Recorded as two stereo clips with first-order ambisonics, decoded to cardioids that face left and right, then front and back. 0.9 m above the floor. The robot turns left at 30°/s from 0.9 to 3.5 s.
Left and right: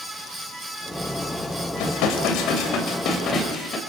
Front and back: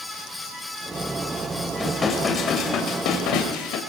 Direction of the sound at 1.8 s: 80° left.